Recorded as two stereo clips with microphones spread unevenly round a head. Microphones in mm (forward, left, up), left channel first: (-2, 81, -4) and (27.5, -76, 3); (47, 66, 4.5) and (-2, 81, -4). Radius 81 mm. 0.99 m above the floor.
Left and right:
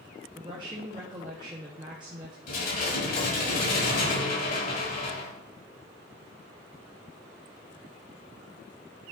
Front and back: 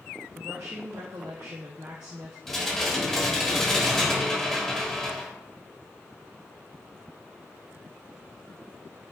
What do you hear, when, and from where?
0.3 s a woman speaking: 145° right, 1.1 m
2.5 s dishes clattering: 65° left, 3.5 m